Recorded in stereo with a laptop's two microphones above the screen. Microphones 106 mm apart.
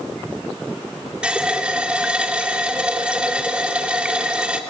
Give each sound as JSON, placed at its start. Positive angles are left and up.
{"t": 1.2, "sound": "a running tap", "side_deg": -10, "distance_m": 2.5}